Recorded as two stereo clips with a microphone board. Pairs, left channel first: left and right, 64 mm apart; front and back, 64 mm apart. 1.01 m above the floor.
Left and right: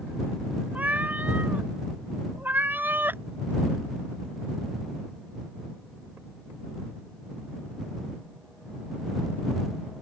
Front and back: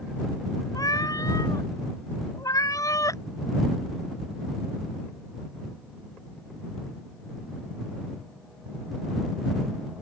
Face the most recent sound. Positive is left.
turn(degrees=-35)